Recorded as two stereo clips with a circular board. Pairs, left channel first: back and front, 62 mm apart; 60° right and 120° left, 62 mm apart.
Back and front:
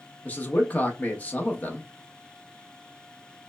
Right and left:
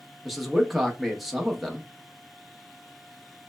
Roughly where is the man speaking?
Behind.